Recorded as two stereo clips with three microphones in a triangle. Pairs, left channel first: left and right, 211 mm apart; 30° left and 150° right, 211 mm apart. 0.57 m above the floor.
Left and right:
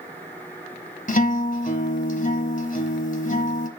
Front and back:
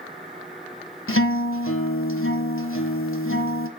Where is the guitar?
40° left, 1.1 m.